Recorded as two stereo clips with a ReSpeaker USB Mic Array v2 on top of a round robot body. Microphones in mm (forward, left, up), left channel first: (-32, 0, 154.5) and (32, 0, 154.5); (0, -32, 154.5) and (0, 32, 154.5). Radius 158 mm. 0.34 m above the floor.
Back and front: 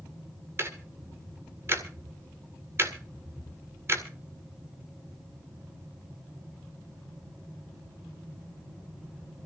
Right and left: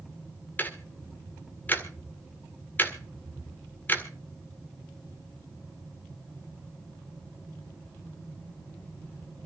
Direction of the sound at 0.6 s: 35° right.